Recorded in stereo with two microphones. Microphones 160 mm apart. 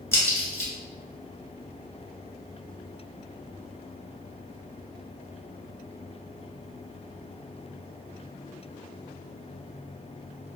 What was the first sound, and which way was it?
A crack, 15° left (ahead or behind).